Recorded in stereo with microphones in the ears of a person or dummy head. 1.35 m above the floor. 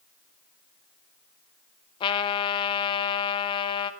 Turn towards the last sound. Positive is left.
turn(degrees=25)  # may be behind; listen again after turning